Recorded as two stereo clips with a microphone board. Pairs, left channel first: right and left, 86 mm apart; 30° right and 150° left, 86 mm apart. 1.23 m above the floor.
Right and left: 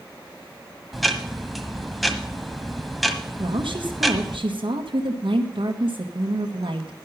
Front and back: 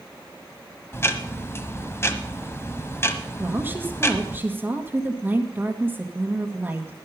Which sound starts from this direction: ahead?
Ticking, at 0.9 s.